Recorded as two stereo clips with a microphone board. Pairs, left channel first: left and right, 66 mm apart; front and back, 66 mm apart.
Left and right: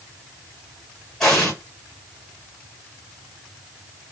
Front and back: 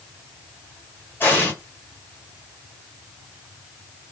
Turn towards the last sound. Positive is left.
turn(degrees=15)